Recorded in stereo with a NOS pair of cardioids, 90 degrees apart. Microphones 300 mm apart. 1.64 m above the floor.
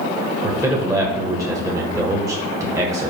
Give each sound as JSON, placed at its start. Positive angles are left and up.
{"t": 0.4, "sound": "a man speaking", "azimuth_deg": -10, "distance_m": 1.6}